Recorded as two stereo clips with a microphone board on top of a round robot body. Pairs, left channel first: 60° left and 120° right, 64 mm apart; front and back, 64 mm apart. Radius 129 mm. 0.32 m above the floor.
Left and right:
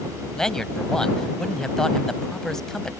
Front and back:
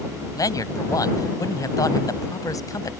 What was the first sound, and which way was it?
A man speaking, 20° right.